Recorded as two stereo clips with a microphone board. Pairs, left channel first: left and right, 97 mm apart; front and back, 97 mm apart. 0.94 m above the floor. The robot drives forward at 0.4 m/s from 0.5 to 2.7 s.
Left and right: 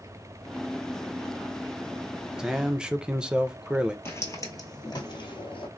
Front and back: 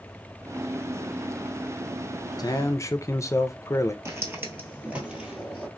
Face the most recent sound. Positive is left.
turn(degrees=95)